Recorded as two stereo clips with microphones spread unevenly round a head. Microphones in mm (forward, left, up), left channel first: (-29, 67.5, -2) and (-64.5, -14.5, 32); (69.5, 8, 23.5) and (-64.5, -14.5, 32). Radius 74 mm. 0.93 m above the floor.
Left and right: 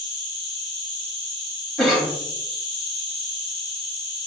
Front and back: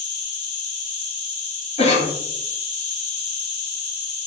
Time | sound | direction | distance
0.0 | an insect | 35° right | 1.9 m
1.8 | a cough | 5° left | 1.2 m